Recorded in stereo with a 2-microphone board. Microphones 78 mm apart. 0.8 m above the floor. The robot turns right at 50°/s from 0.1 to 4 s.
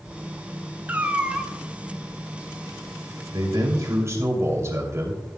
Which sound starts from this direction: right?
A man speaking, at 3.3 s.